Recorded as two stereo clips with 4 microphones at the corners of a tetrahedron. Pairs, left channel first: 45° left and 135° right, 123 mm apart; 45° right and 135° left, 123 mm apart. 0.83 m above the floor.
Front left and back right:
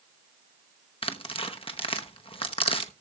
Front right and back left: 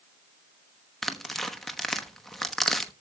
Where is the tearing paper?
45° left, 1.1 m.